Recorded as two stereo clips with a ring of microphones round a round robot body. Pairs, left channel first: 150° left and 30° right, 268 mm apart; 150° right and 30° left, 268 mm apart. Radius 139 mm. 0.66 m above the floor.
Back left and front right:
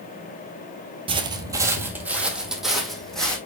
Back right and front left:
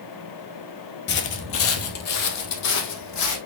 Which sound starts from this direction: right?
Footsteps, at 1.1 s.